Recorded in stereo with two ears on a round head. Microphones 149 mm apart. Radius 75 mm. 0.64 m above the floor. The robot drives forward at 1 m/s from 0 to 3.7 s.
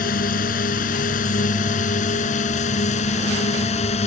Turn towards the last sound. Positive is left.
turn(degrees=40)  # may be behind; listen again after turning